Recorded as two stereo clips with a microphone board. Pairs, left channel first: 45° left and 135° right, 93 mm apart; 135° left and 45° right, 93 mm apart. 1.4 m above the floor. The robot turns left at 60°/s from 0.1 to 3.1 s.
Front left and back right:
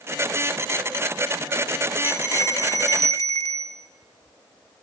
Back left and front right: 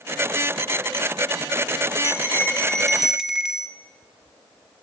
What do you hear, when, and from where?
2.0 s a bell: 100° left, 1.2 m; by 3.8 s 35° left, 1.2 m